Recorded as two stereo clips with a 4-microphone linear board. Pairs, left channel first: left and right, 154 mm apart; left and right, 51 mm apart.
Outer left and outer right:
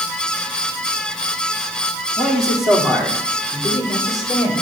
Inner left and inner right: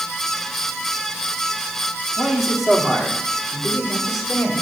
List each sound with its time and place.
2.2 s a man speaking: centre (ahead or behind), 1.4 m